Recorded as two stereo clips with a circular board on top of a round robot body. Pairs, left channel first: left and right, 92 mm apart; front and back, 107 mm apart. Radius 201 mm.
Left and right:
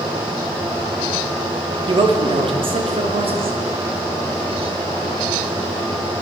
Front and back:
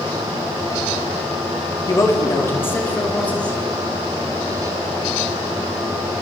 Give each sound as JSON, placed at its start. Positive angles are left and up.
{"t": 1.9, "sound": "a man speaking", "azimuth_deg": -60, "distance_m": 3.5}